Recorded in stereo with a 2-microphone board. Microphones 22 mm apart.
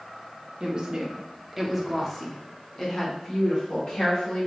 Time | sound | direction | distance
0.6 | a woman speaking | 35° right (ahead or behind) | 1.0 m